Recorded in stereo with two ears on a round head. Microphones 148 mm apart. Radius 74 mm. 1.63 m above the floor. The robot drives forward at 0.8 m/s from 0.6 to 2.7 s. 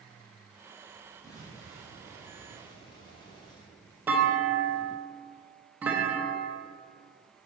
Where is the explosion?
20° left (ahead or behind), 2.5 m; by 3.7 s 30° left (ahead or behind), 1.8 m.